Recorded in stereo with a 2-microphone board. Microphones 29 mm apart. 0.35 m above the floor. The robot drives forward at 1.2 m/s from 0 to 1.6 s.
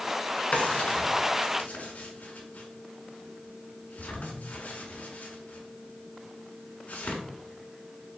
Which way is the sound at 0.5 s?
50° left (ahead or behind).